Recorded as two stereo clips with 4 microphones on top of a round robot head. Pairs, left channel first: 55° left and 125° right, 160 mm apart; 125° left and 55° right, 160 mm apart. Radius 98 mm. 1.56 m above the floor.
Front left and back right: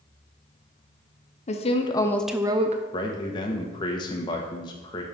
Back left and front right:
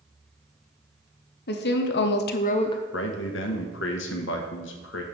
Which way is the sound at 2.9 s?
120° left.